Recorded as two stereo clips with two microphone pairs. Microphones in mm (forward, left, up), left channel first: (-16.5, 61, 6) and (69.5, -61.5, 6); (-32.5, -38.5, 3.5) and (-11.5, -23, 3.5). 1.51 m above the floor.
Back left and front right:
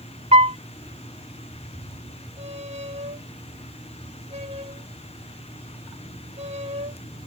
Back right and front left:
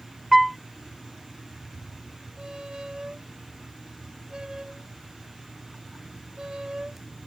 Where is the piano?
45° right.